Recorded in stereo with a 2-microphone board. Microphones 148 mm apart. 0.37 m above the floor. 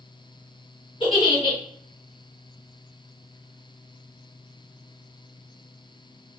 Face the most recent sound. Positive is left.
turn(degrees=40)  # may be behind; listen again after turning